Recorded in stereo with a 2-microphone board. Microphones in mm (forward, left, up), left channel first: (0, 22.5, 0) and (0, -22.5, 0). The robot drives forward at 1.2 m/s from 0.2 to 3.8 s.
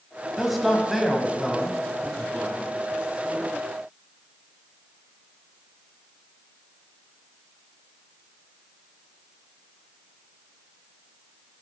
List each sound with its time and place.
0.4 s a man speaking: centre (ahead or behind), 1.0 m